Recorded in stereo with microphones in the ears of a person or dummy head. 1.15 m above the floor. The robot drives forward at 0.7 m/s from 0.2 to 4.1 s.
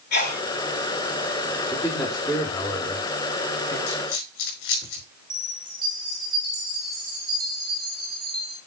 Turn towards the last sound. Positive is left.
turn(degrees=-25)  # may be behind; listen again after turning